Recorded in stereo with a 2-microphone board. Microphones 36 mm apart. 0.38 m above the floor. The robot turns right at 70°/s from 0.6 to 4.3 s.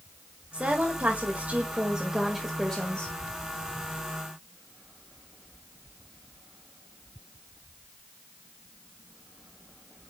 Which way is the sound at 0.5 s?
130° right.